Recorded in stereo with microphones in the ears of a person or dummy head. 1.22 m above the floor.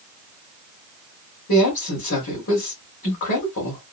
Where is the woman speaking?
75° left (ahead or behind), 2 m.